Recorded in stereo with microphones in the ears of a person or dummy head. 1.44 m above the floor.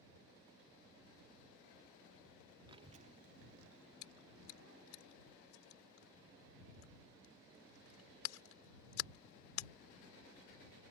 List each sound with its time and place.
2.7 s a child speaking: 25° right (ahead or behind); by 5.0 s 85° right
4.0 s chewing: 85° left